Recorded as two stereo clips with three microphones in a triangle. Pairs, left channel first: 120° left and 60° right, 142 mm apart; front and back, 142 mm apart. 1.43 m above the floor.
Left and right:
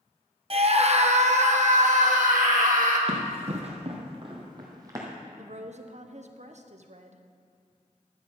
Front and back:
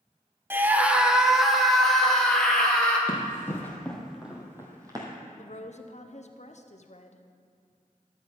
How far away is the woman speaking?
About 0.8 m.